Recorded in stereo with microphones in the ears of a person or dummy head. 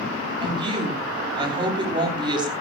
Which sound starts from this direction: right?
A woman speaking, at 0.4 s.